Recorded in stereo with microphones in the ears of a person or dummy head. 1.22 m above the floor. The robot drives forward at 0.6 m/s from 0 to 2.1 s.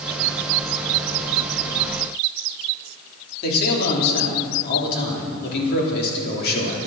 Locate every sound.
3.4 s a man speaking: 50° left (ahead or behind), 3.5 m